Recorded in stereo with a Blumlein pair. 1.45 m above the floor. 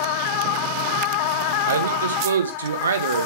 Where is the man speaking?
70° right, 1.7 m.